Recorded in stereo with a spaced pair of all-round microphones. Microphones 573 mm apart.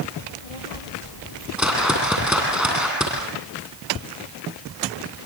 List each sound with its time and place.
0.2 s a child speaking: 75° left (ahead or behind), 3.5 m; by 1.5 s 80° left, 2.5 m
1.6 s a whoosh: centre (ahead or behind), 9.5 m